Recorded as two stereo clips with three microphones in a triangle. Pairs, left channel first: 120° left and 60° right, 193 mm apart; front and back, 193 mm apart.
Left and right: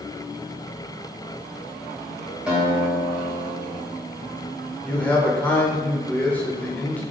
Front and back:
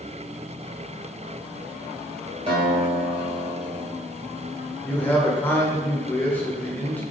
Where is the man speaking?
55° left, 0.9 m.